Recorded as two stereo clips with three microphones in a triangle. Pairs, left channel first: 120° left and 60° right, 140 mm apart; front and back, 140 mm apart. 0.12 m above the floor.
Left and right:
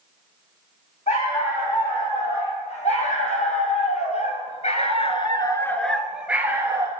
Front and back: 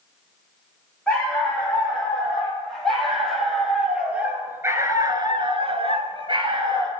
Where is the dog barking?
80° left, 3 m; by 6.9 s 125° right, 1.2 m.